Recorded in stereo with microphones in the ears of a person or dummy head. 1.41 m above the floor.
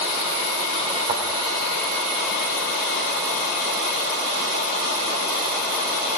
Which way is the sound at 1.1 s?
30° right (ahead or behind).